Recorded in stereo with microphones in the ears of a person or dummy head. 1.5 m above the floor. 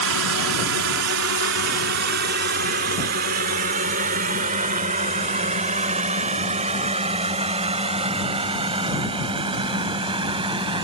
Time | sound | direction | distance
0.0 | a drone | 85° right | ?